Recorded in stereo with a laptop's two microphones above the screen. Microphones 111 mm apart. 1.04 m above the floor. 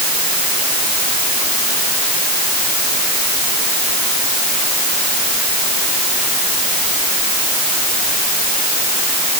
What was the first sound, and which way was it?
Only background noise.